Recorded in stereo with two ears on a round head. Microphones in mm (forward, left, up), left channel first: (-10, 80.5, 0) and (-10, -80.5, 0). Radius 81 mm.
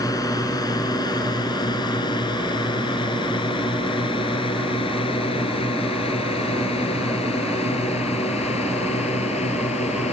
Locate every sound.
0.0 s a drone: 20° left (ahead or behind); by 10.1 s 35° left (ahead or behind)